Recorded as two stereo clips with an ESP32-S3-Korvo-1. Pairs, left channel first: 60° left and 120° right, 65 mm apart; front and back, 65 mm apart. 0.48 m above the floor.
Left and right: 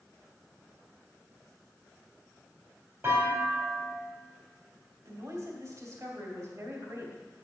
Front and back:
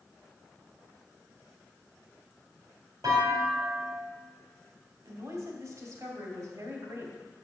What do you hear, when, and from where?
3.0 s a clunk: 175° right, 3.5 m
5.0 s a woman speaking: 160° right, 2.5 m